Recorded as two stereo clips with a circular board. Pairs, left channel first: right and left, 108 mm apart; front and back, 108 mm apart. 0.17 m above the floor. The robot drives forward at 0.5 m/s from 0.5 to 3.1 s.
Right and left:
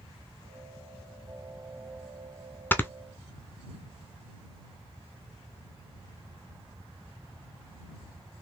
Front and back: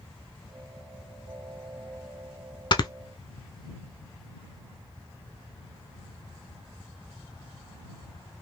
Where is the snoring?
25° right, 0.6 m; by 2.9 s 30° right, 0.5 m.